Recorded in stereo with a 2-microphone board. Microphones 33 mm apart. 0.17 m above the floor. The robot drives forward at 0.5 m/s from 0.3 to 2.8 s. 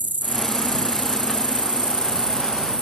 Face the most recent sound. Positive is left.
turn(degrees=-45)  # may be behind; listen again after turning